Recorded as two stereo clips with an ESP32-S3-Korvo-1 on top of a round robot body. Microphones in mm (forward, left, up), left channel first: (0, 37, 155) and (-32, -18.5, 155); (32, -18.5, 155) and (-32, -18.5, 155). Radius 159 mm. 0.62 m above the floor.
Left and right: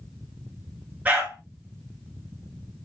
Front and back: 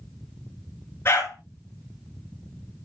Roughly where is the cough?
No cough in this recording.